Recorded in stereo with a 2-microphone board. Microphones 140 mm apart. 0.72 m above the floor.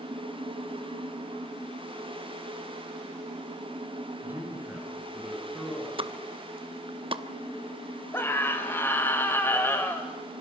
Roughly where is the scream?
Centre.